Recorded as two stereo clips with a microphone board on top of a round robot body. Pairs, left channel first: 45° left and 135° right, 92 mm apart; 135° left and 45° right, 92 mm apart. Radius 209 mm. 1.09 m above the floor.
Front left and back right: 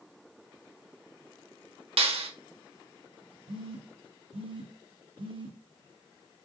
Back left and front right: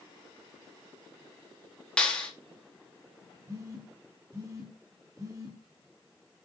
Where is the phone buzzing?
105° right, 2 m.